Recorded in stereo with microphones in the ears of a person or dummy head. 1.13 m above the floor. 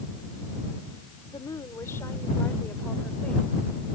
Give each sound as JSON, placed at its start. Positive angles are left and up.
{"t": 1.3, "sound": "a woman speaking", "side_deg": 20}